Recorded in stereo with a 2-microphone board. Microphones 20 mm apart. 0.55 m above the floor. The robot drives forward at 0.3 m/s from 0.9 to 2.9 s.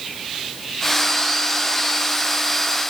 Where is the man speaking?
I don't hear a man speaking.